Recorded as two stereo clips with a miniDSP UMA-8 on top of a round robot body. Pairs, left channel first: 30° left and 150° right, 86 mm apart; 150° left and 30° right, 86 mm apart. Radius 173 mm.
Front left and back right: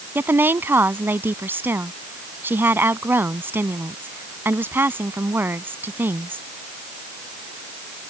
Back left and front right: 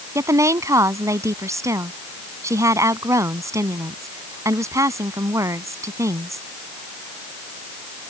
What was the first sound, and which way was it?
A woman speaking, 85° right.